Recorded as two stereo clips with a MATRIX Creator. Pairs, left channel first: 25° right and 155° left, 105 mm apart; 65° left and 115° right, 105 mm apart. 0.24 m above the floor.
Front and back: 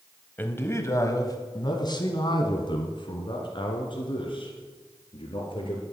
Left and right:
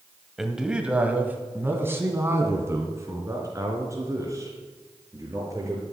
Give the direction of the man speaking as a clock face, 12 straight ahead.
1 o'clock.